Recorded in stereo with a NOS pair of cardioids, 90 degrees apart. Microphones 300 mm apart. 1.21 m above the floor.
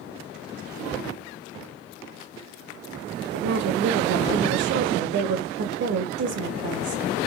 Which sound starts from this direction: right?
A woman speaking, at 3.3 s.